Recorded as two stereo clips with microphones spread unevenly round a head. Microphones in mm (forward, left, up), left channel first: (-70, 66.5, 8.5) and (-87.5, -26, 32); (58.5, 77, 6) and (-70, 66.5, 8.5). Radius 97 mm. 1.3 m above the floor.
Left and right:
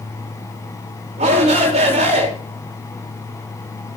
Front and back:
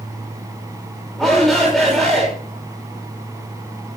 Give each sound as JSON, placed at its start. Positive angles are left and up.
{"t": 1.2, "sound": "a shout", "azimuth_deg": -85, "distance_m": 5.5}